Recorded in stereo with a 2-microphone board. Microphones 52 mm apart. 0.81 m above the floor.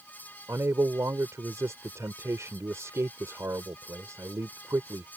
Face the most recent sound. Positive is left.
turn(degrees=-75)  # may be behind; listen again after turning